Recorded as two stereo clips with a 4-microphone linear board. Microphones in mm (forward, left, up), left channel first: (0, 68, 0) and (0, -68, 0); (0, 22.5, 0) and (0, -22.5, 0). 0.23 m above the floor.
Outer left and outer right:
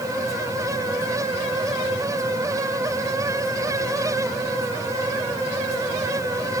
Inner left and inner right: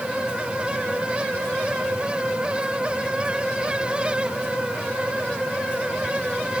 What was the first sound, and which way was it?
Only background noise.